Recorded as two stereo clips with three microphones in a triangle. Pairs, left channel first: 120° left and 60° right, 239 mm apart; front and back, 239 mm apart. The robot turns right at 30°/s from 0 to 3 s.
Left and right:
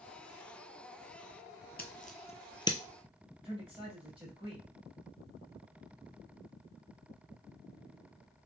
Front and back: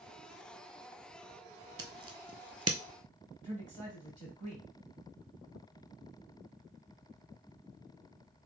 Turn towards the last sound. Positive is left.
turn(degrees=-125)